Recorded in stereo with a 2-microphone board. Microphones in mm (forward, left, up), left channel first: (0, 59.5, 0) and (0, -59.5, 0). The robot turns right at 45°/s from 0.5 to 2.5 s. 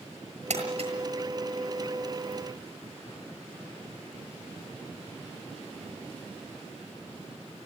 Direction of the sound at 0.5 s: 70° right (ahead or behind).